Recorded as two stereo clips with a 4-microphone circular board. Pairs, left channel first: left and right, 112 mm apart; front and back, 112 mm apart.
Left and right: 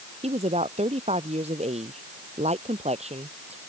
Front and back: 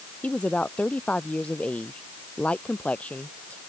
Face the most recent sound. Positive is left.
turn(degrees=-80)